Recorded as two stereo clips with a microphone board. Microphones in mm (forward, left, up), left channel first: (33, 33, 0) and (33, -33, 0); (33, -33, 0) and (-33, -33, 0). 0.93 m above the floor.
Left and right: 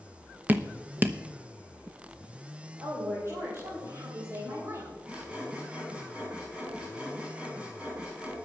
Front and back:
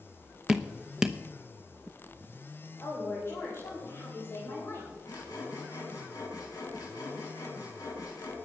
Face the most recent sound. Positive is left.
turn(degrees=-20)